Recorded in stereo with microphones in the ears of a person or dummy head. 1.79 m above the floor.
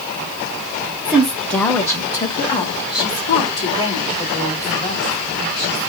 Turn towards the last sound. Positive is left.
turn(degrees=30)  # may be behind; listen again after turning